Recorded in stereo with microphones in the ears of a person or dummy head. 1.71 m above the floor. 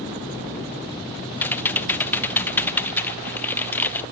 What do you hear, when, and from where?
1.4 s typing on a keyboard: 10° left (ahead or behind), 0.6 m